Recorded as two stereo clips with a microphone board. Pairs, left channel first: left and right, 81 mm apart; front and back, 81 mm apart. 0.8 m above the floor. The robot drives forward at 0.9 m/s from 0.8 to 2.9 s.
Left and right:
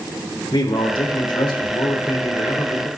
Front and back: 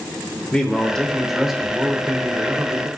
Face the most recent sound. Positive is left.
turn(degrees=125)